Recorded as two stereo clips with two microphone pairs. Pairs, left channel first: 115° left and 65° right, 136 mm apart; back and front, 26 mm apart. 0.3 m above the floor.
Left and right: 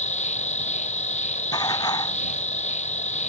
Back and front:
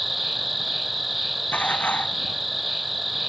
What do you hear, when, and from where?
0.0 s an insect: 90° left
1.5 s dishes clattering: 175° left